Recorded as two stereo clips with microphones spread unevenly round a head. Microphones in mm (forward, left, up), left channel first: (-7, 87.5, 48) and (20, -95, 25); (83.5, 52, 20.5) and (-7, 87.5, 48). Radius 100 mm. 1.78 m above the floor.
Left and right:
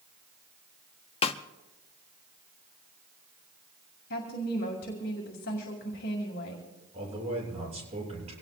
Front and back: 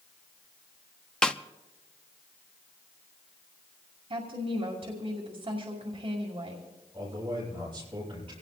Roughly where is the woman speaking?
Behind left.